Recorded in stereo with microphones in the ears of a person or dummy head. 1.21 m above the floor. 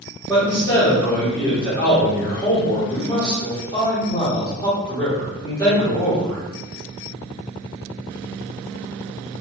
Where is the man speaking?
20° left (ahead or behind), 1.6 m.